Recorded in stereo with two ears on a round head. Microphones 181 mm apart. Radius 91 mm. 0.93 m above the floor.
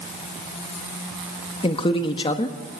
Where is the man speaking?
25° left (ahead or behind), 1.5 m.